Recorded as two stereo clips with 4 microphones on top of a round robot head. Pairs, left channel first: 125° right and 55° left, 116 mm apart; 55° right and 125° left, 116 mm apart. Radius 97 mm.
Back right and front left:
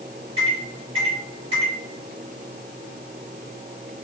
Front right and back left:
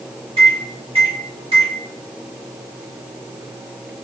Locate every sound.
0.4 s a microwave: 90° left, 1.9 m